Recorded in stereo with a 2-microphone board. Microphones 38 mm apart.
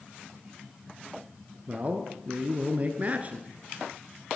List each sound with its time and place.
1.7 s a man speaking: 35° right (ahead or behind), 1.4 m